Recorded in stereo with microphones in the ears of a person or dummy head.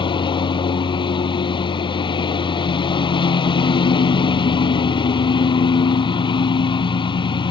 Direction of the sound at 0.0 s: 25° left (ahead or behind).